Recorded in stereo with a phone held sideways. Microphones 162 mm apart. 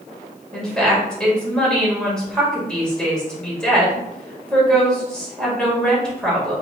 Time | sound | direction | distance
0.5 | a woman speaking | 5° left (ahead or behind) | 2 m